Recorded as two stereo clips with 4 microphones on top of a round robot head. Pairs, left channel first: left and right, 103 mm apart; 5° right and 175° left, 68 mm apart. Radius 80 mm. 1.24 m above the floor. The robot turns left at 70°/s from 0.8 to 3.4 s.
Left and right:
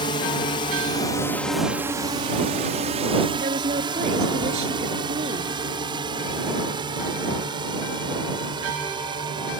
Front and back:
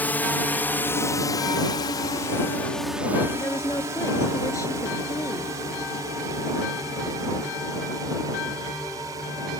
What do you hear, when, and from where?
0.0 s a drone: 60° left; by 9.6 s 135° right
3.4 s a woman speaking: 60° right